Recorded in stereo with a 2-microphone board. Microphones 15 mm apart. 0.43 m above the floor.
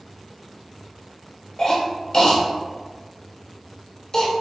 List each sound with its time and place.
1.6 s a cough: 45° left (ahead or behind), 1.1 m